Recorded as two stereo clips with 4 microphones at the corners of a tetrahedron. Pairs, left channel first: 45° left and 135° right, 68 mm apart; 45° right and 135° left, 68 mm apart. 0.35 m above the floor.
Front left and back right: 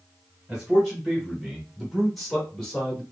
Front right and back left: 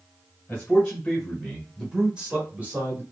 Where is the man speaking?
70° right, 1.3 m; by 3.0 s 120° left, 1.4 m.